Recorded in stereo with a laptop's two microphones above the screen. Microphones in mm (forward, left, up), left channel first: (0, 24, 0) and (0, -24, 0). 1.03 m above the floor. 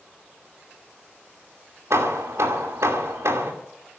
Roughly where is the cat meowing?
No cat meowing in this recording.